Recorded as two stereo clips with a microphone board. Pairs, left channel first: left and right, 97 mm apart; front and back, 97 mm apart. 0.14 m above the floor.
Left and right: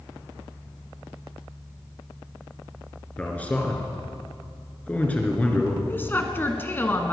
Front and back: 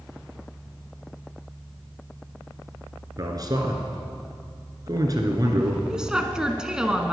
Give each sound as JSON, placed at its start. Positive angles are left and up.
{"t": 3.2, "sound": "a man speaking", "azimuth_deg": 160, "distance_m": 2.0}
{"t": 5.9, "sound": "a woman speaking", "azimuth_deg": 110, "distance_m": 1.2}